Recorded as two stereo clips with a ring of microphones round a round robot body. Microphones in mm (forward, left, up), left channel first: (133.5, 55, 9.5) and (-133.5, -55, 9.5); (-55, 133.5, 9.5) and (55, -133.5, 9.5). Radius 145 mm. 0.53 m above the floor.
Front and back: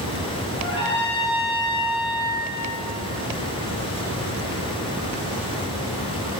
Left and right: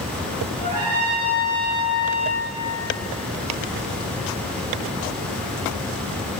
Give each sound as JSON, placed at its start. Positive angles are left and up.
{"t": 0.6, "sound": "a trumpet", "azimuth_deg": -50, "distance_m": 7.0}